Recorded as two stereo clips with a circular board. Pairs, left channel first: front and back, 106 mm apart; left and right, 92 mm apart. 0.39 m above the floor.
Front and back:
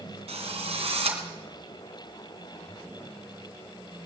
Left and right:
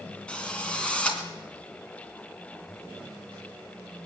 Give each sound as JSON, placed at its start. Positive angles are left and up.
{"t": 0.3, "sound": "a drill", "azimuth_deg": 170, "distance_m": 2.5}